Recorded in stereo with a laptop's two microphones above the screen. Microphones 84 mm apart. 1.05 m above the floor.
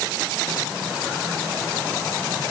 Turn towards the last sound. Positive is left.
No sound to turn to.